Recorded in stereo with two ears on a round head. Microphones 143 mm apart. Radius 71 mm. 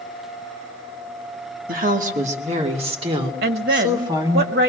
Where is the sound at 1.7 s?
60° right (ahead or behind), 1.9 m; by 4.4 s 25° right (ahead or behind), 3.5 m.